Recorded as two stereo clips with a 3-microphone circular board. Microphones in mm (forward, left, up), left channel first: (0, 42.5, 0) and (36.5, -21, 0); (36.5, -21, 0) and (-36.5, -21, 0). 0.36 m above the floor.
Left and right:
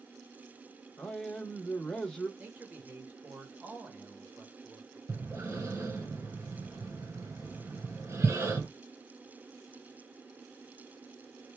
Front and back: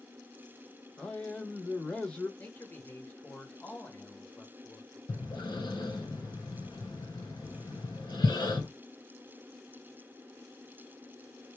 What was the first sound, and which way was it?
A man speaking, 50° left.